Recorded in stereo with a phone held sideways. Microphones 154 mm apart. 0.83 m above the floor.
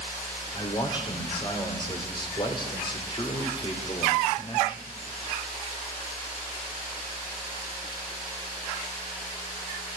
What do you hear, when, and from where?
0.5 s a man speaking: 30° left (ahead or behind), 2.5 m